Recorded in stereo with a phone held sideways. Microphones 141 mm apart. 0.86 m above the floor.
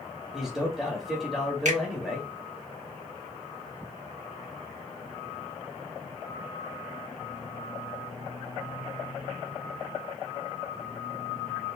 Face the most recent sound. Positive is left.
turn(degrees=-65)  # may be behind; listen again after turning